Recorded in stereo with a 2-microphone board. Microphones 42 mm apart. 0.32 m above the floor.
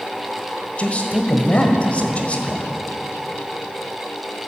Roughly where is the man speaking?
Left.